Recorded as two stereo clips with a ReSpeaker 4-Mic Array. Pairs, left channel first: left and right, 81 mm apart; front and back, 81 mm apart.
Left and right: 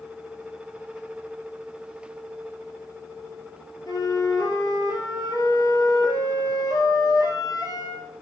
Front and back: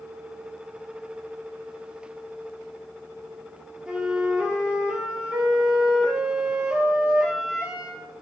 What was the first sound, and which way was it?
A flute, 100° left.